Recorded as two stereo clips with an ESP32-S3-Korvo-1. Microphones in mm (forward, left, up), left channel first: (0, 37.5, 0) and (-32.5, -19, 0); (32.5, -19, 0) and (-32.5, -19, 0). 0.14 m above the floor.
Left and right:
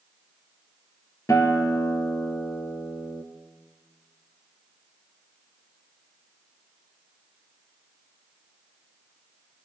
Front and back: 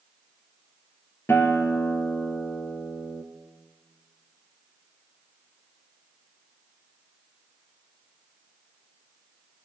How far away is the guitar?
About 1.1 m.